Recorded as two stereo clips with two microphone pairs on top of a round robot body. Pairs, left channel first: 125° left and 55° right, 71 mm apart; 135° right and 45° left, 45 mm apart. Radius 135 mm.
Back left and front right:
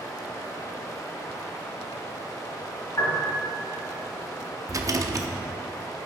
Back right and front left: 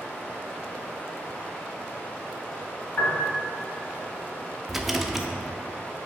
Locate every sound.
0.0 s running water: 165° left, 1.6 m
3.0 s a piano: 175° left, 1.6 m
4.7 s a rattle: 40° right, 0.7 m